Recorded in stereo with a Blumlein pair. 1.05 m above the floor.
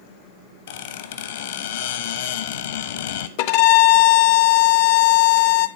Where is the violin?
45° left, 0.6 m.